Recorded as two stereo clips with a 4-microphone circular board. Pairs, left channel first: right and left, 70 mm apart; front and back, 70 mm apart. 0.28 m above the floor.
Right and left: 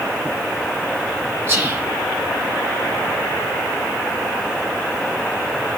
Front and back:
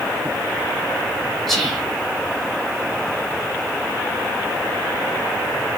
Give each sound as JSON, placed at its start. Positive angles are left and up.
{"t": 1.5, "sound": "whispering", "azimuth_deg": 85, "distance_m": 1.4}